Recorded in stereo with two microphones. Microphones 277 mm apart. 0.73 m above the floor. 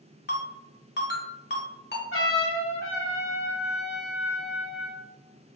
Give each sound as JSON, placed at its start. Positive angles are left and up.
{"t": 0.3, "sound": "a ringtone", "side_deg": 40, "distance_m": 0.8}
{"t": 2.1, "sound": "a trumpet", "side_deg": 50, "distance_m": 0.7}